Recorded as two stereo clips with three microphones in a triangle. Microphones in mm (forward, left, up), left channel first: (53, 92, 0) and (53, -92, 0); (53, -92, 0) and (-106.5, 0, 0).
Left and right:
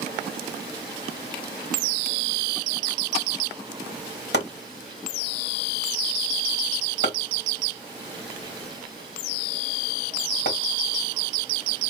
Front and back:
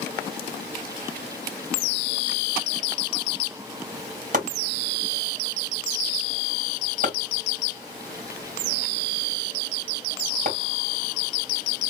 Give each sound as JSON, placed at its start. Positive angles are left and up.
{"t": 4.3, "sound": "chopping", "azimuth_deg": 105, "distance_m": 3.0}